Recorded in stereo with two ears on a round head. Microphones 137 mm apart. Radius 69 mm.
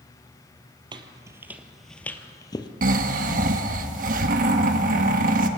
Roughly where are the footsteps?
Right.